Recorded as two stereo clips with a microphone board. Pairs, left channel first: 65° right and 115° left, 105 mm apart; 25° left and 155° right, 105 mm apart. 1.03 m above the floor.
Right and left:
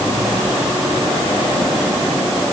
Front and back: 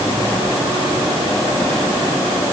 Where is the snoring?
I don't hear snoring.